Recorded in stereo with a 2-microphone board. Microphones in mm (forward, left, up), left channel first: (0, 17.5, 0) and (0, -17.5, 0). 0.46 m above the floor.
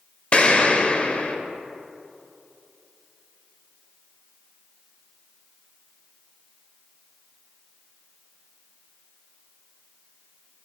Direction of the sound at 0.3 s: 35° left (ahead or behind).